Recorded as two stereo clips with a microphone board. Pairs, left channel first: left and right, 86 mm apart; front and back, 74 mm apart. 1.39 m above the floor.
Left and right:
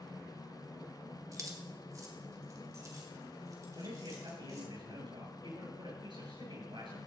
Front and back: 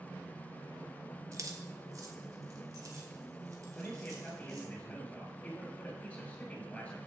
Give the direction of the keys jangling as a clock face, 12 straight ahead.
5 o'clock.